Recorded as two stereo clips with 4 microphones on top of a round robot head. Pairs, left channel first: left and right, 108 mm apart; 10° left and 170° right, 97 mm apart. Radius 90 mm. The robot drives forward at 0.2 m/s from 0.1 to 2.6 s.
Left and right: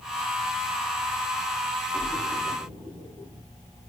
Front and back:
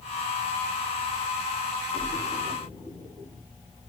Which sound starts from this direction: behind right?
A splash, at 1.9 s.